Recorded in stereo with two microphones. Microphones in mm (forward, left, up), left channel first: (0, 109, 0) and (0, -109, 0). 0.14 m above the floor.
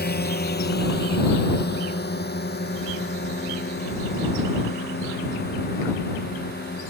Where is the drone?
50° left (ahead or behind).